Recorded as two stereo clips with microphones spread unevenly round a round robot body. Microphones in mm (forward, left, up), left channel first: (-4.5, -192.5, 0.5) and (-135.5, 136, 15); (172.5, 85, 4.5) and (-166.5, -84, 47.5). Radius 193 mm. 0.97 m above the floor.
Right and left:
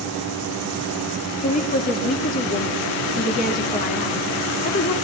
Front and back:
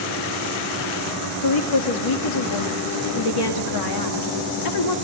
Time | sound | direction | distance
1.4 | a woman speaking | straight ahead | 1.9 m